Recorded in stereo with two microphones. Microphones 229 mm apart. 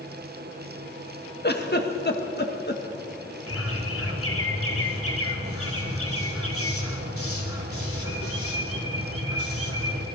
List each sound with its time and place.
1.4 s a giggle: 45° left (ahead or behind), 2.0 m
3.5 s a bird: 75° left (ahead or behind), 3 m